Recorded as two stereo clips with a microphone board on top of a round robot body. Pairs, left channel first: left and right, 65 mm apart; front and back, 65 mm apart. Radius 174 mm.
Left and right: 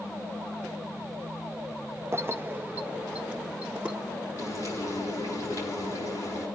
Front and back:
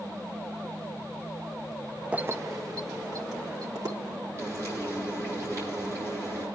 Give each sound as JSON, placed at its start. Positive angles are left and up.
{"t": 2.1, "sound": "keys jangling", "azimuth_deg": -115, "distance_m": 0.6}
{"t": 4.4, "sound": "frying", "azimuth_deg": 135, "distance_m": 9.5}